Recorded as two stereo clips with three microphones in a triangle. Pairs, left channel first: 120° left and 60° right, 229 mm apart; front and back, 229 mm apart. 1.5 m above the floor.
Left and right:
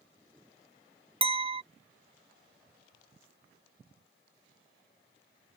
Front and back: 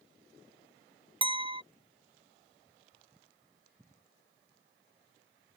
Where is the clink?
120° right.